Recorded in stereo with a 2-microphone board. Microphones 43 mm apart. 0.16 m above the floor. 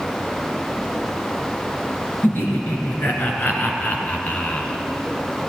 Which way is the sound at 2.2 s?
55° left (ahead or behind).